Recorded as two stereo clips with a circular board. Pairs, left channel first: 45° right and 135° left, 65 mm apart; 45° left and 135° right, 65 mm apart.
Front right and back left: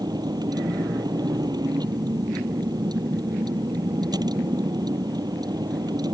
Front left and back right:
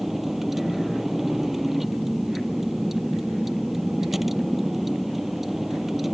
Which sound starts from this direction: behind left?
A vehicle, at 0.0 s.